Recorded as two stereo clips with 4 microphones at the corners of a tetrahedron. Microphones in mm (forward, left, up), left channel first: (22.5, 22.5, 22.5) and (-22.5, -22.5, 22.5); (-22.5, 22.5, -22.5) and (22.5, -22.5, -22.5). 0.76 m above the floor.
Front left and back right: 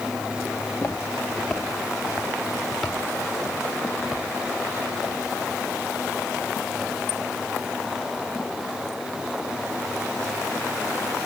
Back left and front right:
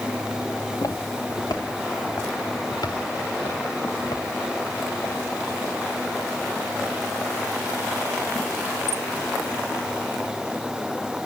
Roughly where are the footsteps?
Left.